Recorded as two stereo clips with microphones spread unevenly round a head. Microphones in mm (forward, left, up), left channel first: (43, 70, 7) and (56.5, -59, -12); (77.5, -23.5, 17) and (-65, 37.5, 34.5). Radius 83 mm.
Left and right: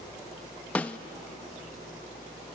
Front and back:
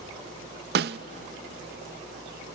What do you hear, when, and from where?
0.8 s a snare drum: 175° left, 0.6 m